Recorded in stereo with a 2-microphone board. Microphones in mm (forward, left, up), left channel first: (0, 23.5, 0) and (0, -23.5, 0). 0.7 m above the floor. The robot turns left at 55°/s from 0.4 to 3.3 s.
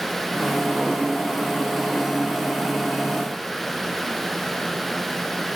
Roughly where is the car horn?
I don't hear a car horn.